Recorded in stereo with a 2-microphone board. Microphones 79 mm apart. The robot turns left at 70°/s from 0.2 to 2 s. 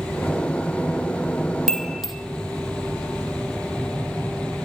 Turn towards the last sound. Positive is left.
turn(degrees=0)  # may be behind; listen again after turning